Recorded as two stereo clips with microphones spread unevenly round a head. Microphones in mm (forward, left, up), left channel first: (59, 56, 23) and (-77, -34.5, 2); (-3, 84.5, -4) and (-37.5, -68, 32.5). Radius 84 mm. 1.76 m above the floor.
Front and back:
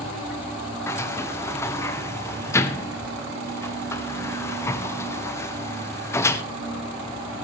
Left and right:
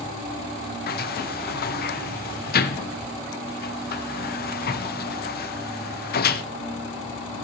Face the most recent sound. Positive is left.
turn(degrees=110)